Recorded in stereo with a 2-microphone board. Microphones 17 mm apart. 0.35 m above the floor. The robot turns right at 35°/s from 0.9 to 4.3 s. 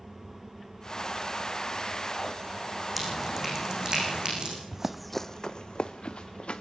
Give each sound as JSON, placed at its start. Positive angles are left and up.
{"t": 3.0, "sound": "dripping", "side_deg": -5, "distance_m": 7.5}
{"t": 4.7, "sound": "running footsteps", "side_deg": -25, "distance_m": 0.9}